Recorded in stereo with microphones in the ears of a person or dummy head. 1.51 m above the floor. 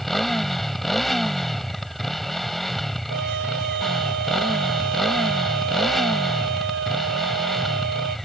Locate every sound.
0.0 s a motorcycle: 5° left (ahead or behind)
3.1 s a trumpet: 70° right (ahead or behind)